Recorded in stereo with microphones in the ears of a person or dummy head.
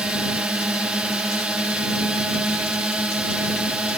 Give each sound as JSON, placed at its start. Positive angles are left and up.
{"t": 0.0, "sound": "a drone", "side_deg": -5}